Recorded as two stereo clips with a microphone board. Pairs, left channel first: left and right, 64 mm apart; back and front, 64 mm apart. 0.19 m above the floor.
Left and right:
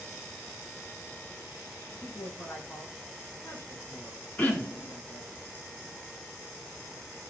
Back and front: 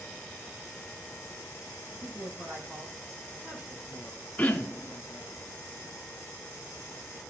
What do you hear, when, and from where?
1.9 s a man speaking: 45° left, 3.5 m
4.4 s throat clearing: 130° left, 1.6 m